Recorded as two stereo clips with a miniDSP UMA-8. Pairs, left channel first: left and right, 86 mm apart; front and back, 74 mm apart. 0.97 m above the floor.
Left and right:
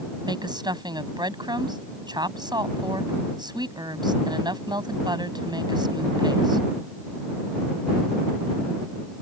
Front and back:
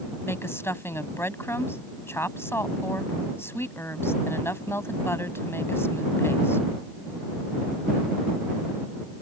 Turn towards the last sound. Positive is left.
turn(degrees=-55)